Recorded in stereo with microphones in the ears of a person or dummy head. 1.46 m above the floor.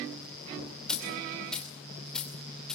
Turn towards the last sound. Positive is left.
turn(degrees=10)  # may be behind; listen again after turning